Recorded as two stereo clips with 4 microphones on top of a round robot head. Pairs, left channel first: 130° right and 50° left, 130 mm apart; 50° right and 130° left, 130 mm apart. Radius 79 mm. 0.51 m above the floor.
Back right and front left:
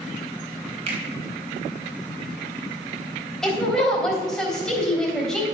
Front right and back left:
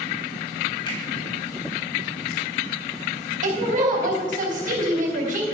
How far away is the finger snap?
About 3.5 m.